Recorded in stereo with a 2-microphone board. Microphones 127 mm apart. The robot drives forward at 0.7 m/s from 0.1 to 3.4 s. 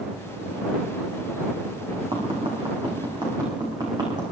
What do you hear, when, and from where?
2.1 s tapping: 45° right (ahead or behind), 4.5 m; by 4.2 s 40° right (ahead or behind), 5 m